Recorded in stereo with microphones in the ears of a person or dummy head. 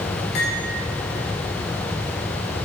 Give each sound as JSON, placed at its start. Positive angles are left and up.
{"t": 0.3, "sound": "cutlery clinking", "side_deg": 75, "distance_m": 2.5}